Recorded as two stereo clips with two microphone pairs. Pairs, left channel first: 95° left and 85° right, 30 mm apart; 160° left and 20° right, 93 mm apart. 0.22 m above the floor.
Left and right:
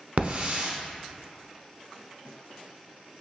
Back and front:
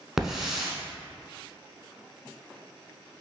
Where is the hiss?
110° right, 0.8 m.